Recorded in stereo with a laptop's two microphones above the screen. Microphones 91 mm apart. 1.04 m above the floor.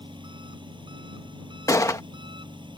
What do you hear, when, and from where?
0.0 s an engine running: 60° right (ahead or behind)
1.7 s a gunshot: 35° left (ahead or behind)